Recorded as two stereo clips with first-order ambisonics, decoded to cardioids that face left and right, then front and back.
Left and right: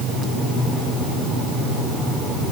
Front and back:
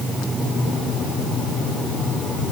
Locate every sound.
Only background noise.